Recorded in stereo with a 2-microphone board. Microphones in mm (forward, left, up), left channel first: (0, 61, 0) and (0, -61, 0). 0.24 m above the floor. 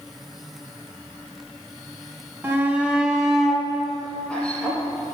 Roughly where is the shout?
Centre.